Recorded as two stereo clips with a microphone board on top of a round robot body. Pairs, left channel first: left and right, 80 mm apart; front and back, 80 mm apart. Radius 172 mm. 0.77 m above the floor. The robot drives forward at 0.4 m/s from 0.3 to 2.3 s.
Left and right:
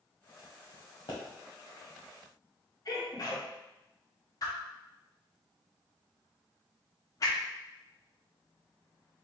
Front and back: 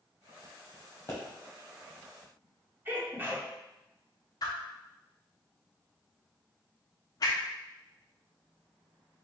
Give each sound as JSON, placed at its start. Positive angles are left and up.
{"t": 1.1, "sound": "a pop", "azimuth_deg": 55, "distance_m": 0.8}
{"t": 2.9, "sound": "a sneeze", "azimuth_deg": 120, "distance_m": 2.0}
{"t": 4.4, "sound": "a whoosh", "azimuth_deg": 45, "distance_m": 0.6}